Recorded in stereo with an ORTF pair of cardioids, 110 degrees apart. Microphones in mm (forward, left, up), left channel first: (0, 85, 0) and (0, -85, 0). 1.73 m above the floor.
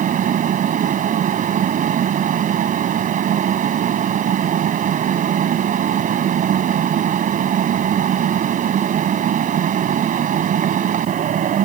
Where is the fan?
50° right.